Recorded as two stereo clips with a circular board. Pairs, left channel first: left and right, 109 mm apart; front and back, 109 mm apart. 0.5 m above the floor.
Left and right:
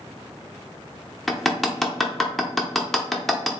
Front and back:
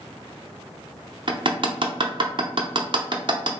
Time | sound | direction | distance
1.3 | hammering | 175° left | 0.6 m